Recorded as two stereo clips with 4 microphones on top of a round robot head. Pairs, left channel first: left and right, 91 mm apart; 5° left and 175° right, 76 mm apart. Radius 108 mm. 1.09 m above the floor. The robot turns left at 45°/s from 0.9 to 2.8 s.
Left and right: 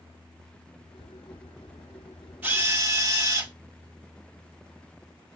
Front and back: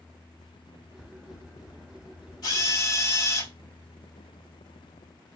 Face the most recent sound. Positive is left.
turn(degrees=-35)